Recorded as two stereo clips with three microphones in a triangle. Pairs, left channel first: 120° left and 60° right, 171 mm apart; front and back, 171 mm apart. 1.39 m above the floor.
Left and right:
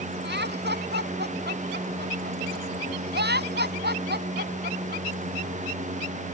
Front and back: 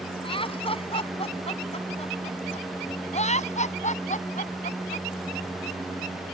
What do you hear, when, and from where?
0.2 s laughter: 60° right; by 5.1 s 40° right